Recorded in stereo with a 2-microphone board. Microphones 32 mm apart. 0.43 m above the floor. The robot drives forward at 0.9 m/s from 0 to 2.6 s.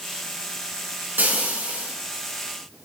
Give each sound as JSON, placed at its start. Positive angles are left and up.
{"t": 1.2, "sound": "frying", "side_deg": -80, "distance_m": 4.5}